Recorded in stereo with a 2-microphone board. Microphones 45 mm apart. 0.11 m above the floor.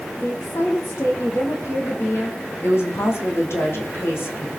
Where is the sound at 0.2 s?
70° left (ahead or behind), 4.5 m.